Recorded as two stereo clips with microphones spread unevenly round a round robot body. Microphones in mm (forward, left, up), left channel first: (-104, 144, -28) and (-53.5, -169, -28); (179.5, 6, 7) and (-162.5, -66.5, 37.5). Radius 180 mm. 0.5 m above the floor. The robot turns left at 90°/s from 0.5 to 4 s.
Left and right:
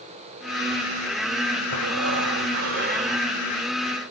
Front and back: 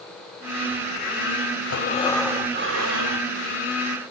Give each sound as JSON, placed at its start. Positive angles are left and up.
{"t": 1.7, "sound": "breathing", "azimuth_deg": -30, "distance_m": 1.7}